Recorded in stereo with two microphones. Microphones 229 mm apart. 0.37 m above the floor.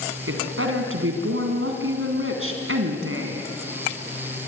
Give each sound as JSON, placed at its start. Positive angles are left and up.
{"t": 0.3, "sound": "a woman speaking", "side_deg": -70, "distance_m": 3.0}